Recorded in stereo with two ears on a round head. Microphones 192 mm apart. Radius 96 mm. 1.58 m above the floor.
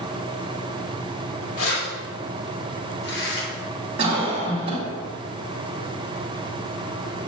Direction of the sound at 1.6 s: 75° left (ahead or behind).